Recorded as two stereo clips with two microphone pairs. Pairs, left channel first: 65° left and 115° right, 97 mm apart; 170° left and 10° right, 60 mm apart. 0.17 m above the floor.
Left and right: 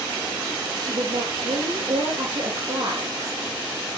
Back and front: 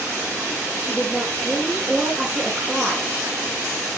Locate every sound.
0.8 s a woman speaking: 80° right, 4 m